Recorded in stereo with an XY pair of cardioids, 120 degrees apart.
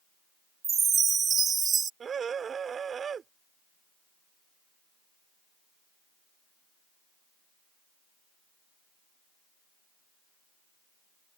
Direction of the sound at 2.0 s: 40° right.